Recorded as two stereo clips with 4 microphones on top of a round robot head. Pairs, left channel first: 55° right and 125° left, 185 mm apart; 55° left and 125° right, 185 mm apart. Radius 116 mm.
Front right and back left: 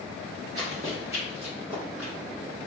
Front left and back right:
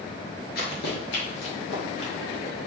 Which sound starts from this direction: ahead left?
Running footsteps, at 0.6 s.